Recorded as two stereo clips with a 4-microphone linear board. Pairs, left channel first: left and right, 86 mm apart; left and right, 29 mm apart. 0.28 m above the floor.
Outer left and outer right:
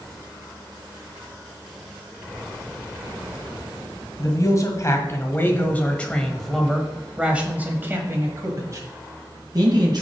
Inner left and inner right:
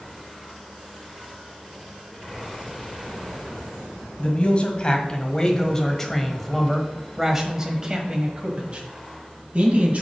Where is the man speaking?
45° left (ahead or behind), 1.8 m; by 10.0 s 55° right (ahead or behind), 2 m.